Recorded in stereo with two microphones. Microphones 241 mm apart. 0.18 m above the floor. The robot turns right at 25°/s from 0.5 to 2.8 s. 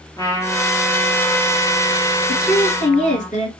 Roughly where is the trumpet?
Ahead.